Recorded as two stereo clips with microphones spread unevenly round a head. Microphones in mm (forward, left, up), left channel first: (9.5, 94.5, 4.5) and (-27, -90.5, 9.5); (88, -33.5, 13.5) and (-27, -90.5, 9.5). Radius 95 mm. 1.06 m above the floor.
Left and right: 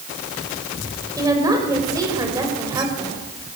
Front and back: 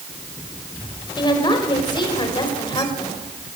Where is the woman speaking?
30° right, 5 m.